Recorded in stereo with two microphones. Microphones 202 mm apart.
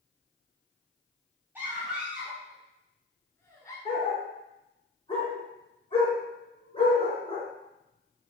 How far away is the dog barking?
About 3 m.